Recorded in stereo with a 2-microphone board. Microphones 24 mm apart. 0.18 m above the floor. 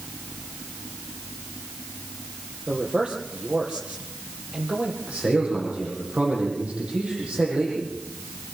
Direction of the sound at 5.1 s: 60° right (ahead or behind).